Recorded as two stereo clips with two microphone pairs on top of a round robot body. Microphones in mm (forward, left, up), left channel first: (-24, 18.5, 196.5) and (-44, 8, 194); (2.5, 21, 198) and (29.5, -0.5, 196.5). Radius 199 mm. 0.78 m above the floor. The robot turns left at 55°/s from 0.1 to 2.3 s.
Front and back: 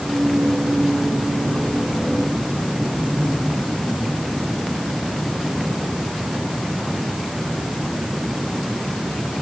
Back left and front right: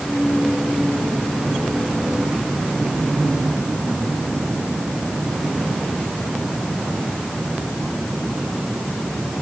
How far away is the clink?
No clink in this recording.